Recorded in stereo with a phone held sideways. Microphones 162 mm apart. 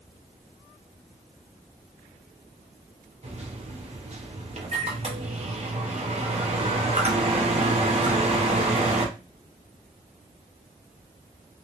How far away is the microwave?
About 0.7 m.